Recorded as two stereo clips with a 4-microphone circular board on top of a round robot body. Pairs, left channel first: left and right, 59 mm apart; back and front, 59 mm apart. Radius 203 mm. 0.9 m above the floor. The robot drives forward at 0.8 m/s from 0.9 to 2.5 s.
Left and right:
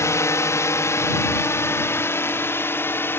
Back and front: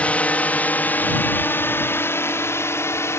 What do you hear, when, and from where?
0.0 s a drone: 115° left; by 3.2 s 140° left